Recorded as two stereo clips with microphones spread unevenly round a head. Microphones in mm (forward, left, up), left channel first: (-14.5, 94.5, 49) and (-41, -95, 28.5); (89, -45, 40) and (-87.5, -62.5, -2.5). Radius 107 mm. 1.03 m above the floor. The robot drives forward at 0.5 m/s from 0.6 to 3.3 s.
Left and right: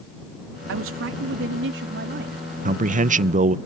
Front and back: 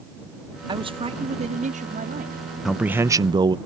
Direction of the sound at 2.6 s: 100° right.